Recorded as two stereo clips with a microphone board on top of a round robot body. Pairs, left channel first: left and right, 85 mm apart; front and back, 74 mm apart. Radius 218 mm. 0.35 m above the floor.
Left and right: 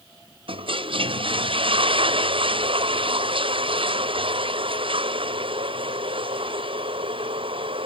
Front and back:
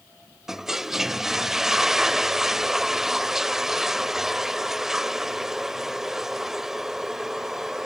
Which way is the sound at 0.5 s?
95° right.